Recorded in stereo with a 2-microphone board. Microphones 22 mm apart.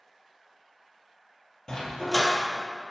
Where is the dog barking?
35° left (ahead or behind), 1.5 m.